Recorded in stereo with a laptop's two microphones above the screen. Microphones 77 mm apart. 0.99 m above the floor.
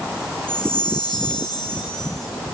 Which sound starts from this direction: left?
A chime, at 0.5 s.